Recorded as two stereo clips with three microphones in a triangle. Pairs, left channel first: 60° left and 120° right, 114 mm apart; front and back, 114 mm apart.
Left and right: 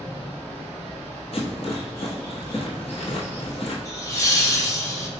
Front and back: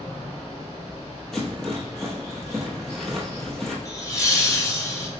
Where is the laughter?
30° left, 1.2 m.